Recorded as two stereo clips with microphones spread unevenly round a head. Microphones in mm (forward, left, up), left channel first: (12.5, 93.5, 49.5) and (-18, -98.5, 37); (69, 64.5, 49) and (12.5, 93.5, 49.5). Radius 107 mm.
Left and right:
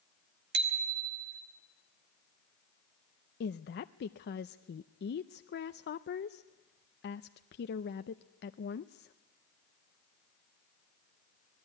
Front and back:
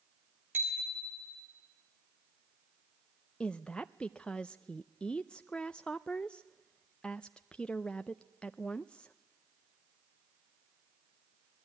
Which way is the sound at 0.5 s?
135° right.